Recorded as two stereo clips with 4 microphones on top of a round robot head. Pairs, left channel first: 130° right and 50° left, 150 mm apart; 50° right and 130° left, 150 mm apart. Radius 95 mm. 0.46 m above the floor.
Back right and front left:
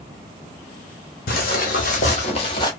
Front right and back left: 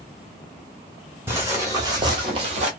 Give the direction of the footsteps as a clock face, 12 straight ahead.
5 o'clock.